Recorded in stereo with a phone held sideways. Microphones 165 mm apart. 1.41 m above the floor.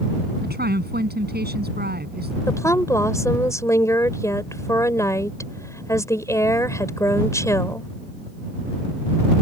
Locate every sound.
0.4 s a woman speaking: 75° right (ahead or behind)
2.5 s a woman speaking: 20° left (ahead or behind)